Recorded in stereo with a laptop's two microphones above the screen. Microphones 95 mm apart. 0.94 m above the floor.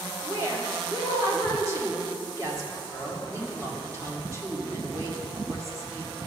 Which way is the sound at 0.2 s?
30° right (ahead or behind).